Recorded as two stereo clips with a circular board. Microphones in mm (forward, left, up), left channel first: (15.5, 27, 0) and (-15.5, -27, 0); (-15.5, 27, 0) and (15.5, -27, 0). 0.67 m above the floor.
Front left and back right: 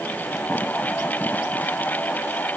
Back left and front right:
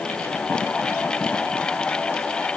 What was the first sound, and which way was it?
Only background noise.